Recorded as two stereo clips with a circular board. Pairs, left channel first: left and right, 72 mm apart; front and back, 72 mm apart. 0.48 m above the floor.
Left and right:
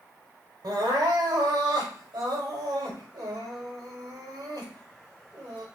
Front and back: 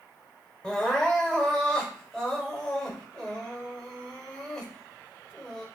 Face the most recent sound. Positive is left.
turn(degrees=-85)